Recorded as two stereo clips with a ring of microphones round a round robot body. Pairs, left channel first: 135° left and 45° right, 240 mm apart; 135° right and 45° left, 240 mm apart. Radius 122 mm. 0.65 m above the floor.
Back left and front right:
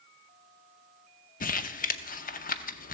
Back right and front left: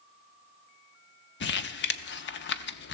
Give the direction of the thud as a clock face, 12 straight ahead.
No thud in this recording.